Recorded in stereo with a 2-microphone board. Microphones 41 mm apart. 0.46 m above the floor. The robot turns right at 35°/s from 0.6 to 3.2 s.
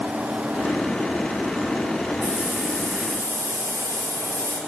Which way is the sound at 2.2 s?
150° right.